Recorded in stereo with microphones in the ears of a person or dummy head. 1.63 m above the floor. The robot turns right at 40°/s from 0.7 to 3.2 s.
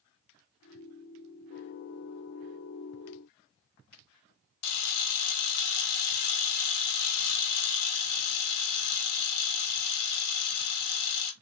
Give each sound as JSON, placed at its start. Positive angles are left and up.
{"t": 4.6, "sound": "a camera shutter", "side_deg": 60, "distance_m": 0.8}